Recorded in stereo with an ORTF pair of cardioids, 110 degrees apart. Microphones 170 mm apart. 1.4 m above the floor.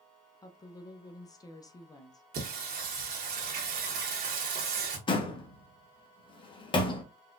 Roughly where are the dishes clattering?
I don't hear dishes clattering.